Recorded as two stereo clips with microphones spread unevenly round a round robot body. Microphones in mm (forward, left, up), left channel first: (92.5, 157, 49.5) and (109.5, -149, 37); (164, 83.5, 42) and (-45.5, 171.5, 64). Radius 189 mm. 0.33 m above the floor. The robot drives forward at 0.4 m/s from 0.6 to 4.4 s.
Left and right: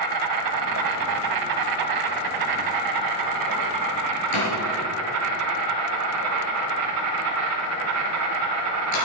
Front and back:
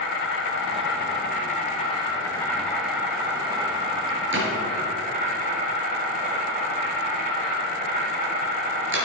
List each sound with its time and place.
0.0 s an insect: 70° right, 1.3 m; by 9.1 s 135° right, 1.6 m
4.3 s a door slam: 120° left, 4 m